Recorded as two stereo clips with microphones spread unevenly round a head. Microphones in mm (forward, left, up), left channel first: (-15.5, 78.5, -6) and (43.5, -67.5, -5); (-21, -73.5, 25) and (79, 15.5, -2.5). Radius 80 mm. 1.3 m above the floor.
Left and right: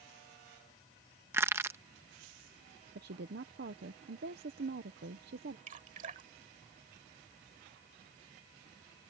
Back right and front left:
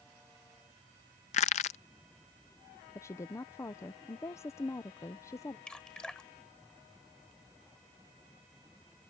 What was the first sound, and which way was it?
Crushing, 140° right.